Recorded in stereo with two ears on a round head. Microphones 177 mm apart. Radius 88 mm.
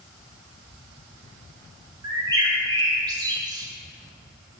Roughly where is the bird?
Right.